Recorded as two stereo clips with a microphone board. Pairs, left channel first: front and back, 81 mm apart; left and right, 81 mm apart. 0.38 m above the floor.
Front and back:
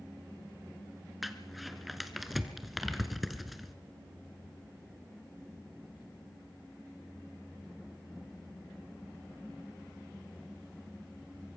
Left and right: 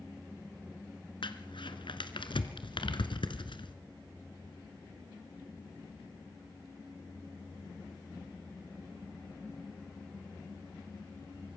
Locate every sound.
1.2 s crumpling: 90° left, 1.4 m